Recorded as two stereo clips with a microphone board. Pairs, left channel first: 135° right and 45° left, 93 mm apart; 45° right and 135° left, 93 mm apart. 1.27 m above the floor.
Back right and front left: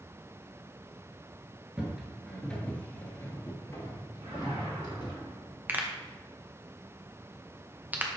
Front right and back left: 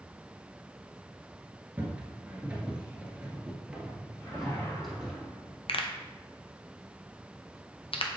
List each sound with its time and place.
1.8 s footsteps: 110° left, 1.3 m; by 5.2 s 140° right, 2.0 m
4.2 s a whoosh: 20° left, 2.5 m
5.7 s a pop: 25° right, 0.7 m